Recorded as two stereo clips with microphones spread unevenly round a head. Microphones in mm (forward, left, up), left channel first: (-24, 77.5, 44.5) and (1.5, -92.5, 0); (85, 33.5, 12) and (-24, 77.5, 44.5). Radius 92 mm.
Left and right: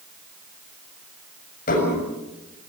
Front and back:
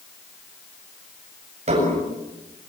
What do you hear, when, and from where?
1.7 s dishes clattering: 135° left, 7.5 m